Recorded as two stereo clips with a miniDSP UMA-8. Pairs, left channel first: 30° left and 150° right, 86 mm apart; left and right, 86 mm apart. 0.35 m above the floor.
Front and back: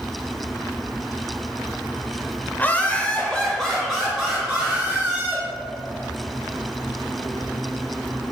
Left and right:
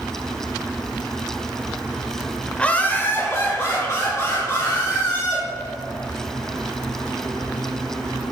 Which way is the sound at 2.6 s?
35° left.